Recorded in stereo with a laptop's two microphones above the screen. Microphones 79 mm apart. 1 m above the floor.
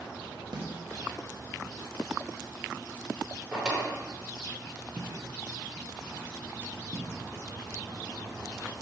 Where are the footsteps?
5° left (ahead or behind), 1.0 m; by 7.1 s 30° right (ahead or behind), 1.9 m.